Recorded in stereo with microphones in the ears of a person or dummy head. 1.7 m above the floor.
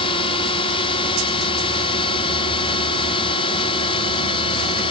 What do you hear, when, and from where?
0.0 s a drone: 30° left (ahead or behind)